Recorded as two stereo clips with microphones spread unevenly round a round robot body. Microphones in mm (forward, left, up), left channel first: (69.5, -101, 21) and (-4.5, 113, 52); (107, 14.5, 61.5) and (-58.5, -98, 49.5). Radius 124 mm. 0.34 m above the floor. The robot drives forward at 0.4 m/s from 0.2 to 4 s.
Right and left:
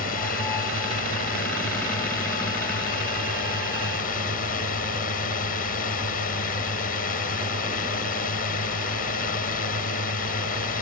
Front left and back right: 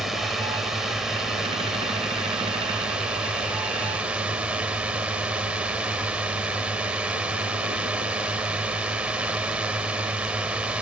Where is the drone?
60° right; by 10.8 s 65° right.